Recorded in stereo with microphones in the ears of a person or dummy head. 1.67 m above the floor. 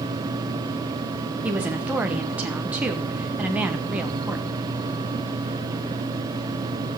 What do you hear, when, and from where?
1.4 s a woman speaking: 5° right (ahead or behind), 1.4 m